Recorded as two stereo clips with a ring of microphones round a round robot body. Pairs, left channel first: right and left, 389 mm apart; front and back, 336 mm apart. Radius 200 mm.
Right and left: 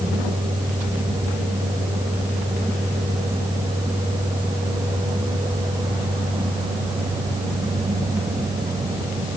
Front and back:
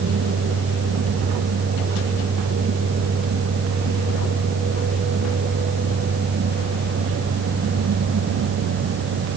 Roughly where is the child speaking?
No child speaking in this recording.